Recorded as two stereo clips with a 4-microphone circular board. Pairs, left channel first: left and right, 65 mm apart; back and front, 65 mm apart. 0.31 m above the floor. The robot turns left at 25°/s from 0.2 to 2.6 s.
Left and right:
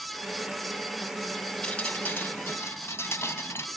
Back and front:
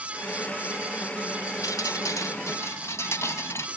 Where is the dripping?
165° left, 0.9 m; by 3.7 s 140° left, 0.9 m.